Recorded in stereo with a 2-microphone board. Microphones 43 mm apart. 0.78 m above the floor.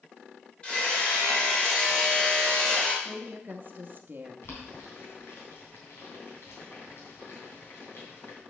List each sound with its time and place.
0.6 s hammering: 25° left (ahead or behind), 3 m
3.0 s a woman speaking: 45° right (ahead or behind), 0.9 m
4.4 s boiling: 65° left (ahead or behind), 3 m